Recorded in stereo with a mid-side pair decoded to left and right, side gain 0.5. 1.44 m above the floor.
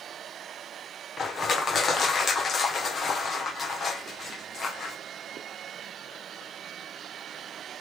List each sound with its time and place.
1.2 s crushing: 40° left, 1.1 m